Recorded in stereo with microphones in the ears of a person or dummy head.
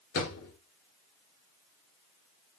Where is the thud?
50° left (ahead or behind), 2.5 m.